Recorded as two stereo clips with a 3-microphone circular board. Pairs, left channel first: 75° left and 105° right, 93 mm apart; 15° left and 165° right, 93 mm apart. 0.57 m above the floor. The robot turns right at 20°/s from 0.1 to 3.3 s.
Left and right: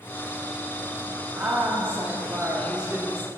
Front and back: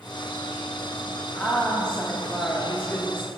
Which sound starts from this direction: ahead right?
A woman speaking, at 1.4 s.